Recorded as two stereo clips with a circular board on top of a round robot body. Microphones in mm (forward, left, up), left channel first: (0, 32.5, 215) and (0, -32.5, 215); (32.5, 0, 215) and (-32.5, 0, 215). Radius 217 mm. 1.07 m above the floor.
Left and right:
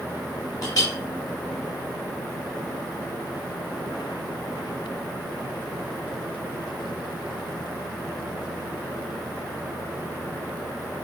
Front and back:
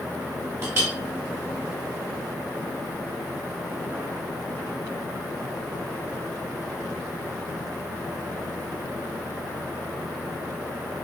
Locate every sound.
0.6 s a clink: 130° left, 0.9 m